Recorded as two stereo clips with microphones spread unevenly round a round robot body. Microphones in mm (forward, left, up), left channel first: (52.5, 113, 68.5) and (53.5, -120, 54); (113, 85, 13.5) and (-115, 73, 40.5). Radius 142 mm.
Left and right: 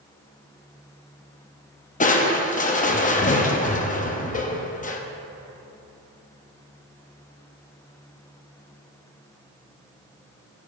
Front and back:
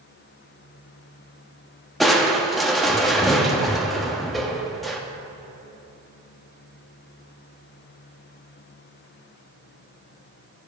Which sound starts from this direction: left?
Crushing, at 2.0 s.